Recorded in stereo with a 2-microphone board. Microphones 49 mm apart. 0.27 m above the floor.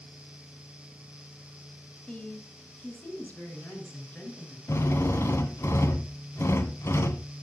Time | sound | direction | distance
2.1 | a woman speaking | 25° left (ahead or behind) | 2 m
4.7 | a drill | 65° left (ahead or behind) | 1.1 m